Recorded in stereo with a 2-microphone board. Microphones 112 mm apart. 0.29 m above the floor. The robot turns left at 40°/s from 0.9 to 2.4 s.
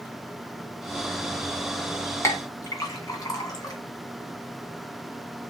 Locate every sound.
2.2 s a clink: 25° left (ahead or behind), 1.7 m; by 3.8 s 30° left (ahead or behind), 1.7 m